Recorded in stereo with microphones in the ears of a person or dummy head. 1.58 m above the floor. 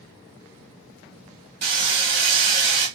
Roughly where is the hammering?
Right.